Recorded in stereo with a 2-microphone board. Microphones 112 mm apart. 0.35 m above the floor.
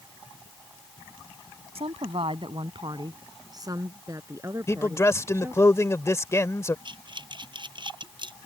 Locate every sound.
1.8 s a woman speaking: 65° right (ahead or behind); by 5.7 s 20° right (ahead or behind)
4.7 s a man speaking: 25° left (ahead or behind)
6.8 s breathing: 45° right (ahead or behind)